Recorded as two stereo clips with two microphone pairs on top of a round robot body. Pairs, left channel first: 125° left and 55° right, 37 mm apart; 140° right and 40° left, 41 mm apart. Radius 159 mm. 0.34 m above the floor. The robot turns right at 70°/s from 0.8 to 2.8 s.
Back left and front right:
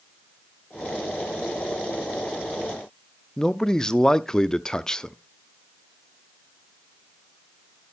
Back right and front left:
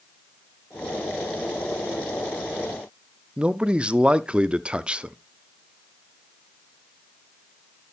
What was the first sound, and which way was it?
A man speaking, 105° left.